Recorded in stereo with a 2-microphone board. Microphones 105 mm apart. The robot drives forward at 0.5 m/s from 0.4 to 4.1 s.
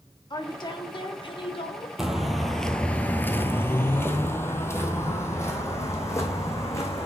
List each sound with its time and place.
0.3 s a woman speaking: 45° left (ahead or behind), 1.6 m; by 1.9 s 60° left (ahead or behind), 1.2 m
2.0 s footsteps: 5° right (ahead or behind), 1.3 m; by 7.1 s 25° left (ahead or behind), 2.5 m